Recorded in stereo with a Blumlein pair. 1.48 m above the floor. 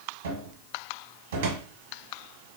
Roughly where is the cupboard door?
Ahead right.